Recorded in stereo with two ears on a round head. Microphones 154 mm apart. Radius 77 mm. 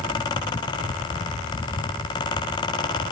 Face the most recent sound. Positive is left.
No sound to turn to.